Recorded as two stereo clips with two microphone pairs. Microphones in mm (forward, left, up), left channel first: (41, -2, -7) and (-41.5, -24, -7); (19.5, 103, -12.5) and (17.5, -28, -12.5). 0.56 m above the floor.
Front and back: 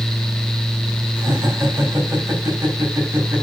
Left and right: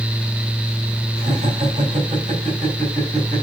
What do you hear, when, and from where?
1.2 s laughter: 110° right, 4 m